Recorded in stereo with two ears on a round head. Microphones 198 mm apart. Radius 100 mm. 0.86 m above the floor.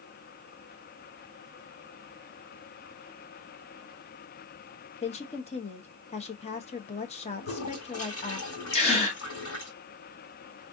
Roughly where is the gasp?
Left.